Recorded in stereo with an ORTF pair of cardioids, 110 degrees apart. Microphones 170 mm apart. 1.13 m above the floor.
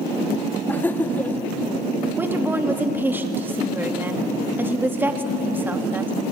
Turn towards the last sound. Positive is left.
turn(degrees=-10)